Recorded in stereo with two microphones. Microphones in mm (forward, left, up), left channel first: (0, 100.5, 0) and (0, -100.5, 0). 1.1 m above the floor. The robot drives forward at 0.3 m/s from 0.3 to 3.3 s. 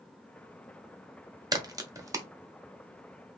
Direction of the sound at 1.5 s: 20° right (ahead or behind).